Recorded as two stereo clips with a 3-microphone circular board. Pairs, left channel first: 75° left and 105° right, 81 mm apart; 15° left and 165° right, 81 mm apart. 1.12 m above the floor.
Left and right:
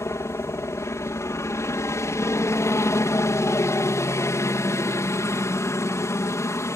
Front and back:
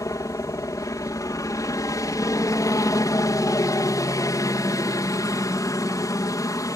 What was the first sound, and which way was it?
A helicopter, 40° left.